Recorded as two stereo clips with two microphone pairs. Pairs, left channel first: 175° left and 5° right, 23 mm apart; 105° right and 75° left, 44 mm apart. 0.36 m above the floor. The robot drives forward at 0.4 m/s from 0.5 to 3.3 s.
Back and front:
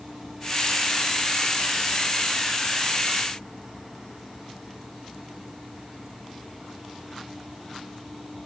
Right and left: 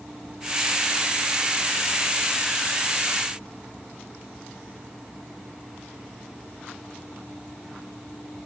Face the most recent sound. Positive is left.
No sound to turn to.